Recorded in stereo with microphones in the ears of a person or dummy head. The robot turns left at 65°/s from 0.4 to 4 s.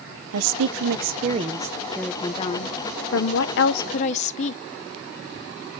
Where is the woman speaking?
85° right, 0.8 m; by 4.6 s 40° left, 0.8 m.